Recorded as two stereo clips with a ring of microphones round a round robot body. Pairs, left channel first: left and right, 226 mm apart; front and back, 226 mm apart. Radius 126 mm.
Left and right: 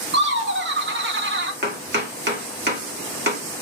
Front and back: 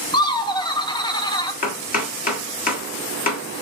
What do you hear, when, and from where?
0.1 s laughter: 70° right, 0.8 m
1.6 s chopping: 50° right, 1.6 m